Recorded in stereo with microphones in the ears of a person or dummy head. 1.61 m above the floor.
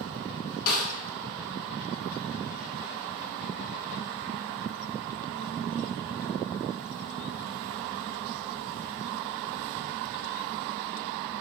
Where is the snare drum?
55° left (ahead or behind), 0.8 m.